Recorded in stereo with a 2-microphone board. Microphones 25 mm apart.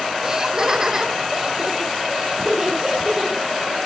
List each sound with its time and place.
0.2 s laughter: 25° right (ahead or behind), 1.1 m; by 3.5 s 15° right (ahead or behind), 3 m